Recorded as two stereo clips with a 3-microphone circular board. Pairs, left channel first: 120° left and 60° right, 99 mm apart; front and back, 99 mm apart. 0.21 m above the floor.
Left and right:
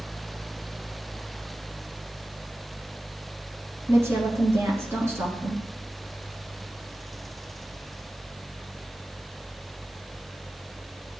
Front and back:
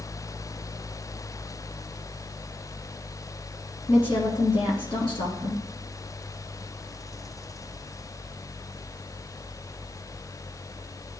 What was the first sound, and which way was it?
A woman speaking, straight ahead.